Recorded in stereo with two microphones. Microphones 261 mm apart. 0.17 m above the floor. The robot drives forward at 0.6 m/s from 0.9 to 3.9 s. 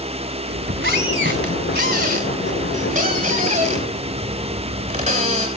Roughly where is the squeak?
Right.